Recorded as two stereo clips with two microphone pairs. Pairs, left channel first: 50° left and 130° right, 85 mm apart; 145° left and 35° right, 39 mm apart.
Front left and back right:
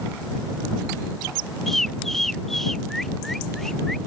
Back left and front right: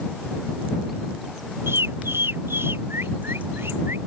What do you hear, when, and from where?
1.7 s a bird: 35° right